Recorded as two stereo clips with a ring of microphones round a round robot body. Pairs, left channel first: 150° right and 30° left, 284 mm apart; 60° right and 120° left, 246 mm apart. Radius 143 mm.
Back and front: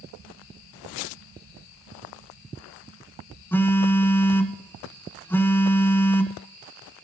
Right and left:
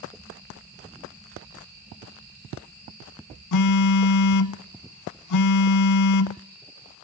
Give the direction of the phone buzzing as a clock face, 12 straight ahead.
2 o'clock.